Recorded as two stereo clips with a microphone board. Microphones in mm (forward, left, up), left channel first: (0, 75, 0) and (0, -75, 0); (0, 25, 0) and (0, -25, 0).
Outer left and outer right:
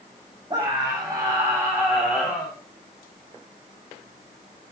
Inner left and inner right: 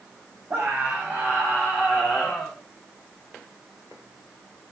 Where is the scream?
30° right (ahead or behind), 4.5 m; by 2.5 s 10° right (ahead or behind), 5.5 m.